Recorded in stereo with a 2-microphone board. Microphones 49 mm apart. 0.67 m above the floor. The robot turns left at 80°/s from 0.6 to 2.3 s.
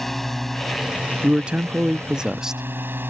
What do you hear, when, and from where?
0.0 s a drone: 5° left; by 3.1 s 130° right
1.2 s a man speaking: 20° right (ahead or behind); by 2.6 s 10° right (ahead or behind)